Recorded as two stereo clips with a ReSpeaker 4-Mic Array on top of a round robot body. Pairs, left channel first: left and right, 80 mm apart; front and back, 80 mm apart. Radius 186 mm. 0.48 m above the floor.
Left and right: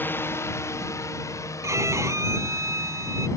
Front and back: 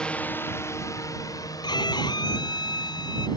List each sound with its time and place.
0.0 s a drone: 65° left; by 3.4 s 40° left
1.6 s a violin: 35° right